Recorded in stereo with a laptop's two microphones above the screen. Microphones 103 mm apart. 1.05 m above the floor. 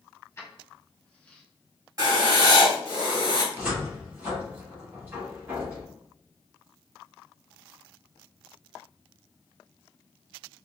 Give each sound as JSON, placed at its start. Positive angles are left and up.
{"t": 0.4, "sound": "keys jangling", "side_deg": 25, "distance_m": 1.9}
{"t": 2.0, "sound": "writing", "side_deg": -35, "distance_m": 2.0}
{"t": 3.5, "sound": "a cupboard door", "side_deg": -15, "distance_m": 1.6}